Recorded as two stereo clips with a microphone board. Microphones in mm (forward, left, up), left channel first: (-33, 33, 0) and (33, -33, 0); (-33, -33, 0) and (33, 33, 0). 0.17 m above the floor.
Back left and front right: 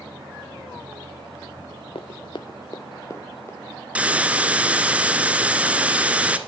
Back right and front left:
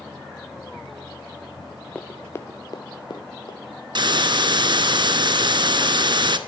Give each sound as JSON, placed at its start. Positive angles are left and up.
{"t": 1.9, "sound": "running footsteps", "azimuth_deg": 145, "distance_m": 0.7}
{"t": 4.0, "sound": "a hiss", "azimuth_deg": 30, "distance_m": 0.7}